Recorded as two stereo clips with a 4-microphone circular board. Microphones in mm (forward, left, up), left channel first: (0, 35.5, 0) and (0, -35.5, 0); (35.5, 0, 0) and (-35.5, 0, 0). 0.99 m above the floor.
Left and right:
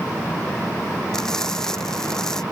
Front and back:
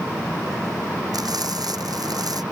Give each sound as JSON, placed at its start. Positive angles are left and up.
{"t": 1.1, "sound": "frying", "azimuth_deg": 170}